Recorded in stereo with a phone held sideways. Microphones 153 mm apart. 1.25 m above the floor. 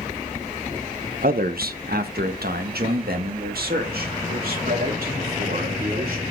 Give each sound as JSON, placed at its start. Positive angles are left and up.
{"t": 1.2, "sound": "a man speaking", "side_deg": -70, "distance_m": 0.8}